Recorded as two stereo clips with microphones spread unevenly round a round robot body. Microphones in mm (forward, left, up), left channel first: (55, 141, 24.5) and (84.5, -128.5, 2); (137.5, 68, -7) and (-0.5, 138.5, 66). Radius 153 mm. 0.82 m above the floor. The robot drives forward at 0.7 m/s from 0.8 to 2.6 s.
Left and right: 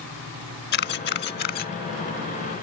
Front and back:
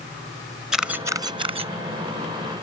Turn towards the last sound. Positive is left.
turn(degrees=165)